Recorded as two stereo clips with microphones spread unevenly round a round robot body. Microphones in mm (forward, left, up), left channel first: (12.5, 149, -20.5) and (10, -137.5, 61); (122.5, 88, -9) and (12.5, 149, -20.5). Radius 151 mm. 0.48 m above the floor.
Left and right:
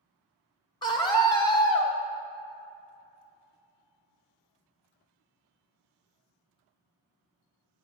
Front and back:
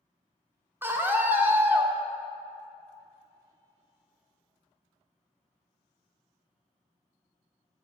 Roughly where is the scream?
Left.